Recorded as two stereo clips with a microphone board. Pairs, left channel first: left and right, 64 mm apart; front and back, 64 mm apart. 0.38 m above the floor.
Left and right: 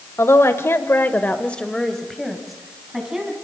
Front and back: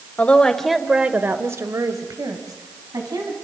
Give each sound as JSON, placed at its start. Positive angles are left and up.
{"t": 0.2, "sound": "a woman speaking", "azimuth_deg": 65, "distance_m": 1.8}